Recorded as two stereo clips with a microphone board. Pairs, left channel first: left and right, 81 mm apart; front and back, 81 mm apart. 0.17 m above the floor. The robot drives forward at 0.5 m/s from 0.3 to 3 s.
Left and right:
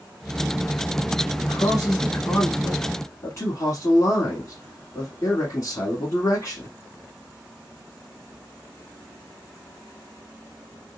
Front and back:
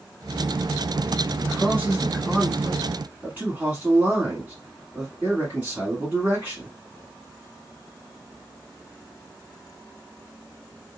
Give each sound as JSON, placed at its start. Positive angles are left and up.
{"t": 1.4, "sound": "a man speaking", "azimuth_deg": 65, "distance_m": 1.3}